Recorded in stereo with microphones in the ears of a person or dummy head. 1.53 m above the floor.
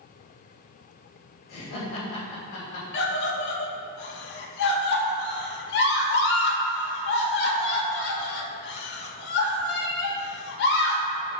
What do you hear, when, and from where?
1.5 s laughter: 60° left (ahead or behind), 3 m
2.9 s a scream: 65° left (ahead or behind), 1.3 m